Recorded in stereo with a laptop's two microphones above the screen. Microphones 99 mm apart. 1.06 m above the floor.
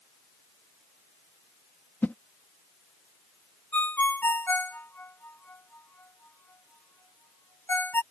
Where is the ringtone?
20° left (ahead or behind).